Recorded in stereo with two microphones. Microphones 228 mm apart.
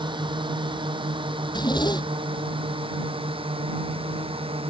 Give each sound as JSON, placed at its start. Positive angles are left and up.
{"t": 0.0, "sound": "a drone", "side_deg": -20}
{"t": 1.4, "sound": "a zipper", "side_deg": 20}